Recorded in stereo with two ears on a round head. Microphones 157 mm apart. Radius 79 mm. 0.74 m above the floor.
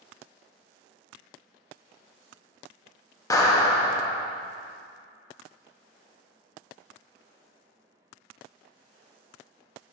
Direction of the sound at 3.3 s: 20° left (ahead or behind).